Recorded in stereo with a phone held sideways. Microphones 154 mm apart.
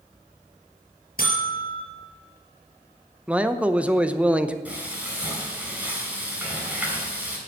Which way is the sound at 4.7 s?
10° right (ahead or behind).